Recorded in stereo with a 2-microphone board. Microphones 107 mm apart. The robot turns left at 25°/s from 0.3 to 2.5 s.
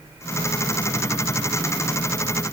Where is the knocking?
I don't hear knocking.